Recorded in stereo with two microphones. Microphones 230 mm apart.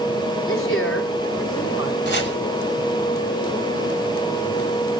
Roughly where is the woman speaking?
Left.